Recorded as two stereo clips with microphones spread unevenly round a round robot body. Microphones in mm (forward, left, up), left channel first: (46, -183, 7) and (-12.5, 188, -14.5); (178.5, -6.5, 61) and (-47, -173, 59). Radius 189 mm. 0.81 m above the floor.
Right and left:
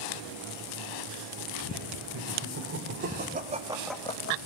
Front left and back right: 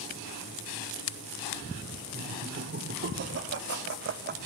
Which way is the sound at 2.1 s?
155° left.